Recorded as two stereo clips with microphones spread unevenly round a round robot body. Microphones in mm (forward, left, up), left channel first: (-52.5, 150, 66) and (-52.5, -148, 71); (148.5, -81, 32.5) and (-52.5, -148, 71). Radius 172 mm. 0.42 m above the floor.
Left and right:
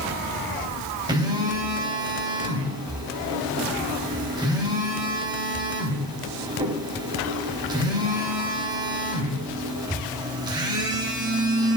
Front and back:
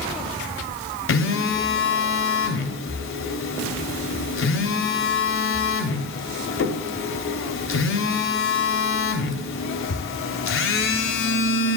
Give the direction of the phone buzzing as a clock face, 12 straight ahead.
12 o'clock.